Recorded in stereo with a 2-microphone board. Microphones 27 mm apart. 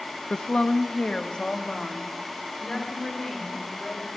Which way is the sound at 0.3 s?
50° left (ahead or behind).